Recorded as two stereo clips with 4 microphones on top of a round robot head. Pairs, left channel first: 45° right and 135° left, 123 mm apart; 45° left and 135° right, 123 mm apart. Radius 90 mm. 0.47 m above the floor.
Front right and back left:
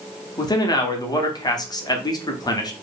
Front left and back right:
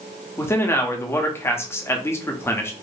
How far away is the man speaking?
About 1.0 m.